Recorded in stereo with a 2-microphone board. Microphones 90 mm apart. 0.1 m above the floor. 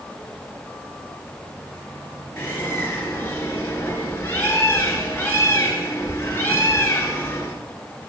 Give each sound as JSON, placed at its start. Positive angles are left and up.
{"t": 2.4, "sound": "a bird", "side_deg": 25, "distance_m": 1.5}